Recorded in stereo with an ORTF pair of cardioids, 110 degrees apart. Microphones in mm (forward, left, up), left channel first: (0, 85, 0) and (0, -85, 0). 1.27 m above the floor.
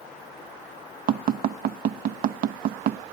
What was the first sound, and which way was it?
Tapping, 65° right.